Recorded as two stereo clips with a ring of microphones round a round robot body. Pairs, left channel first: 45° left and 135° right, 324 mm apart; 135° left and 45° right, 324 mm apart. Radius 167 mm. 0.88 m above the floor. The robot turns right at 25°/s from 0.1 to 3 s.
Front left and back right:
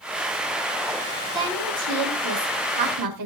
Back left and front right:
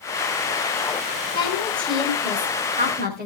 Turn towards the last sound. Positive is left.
turn(degrees=-110)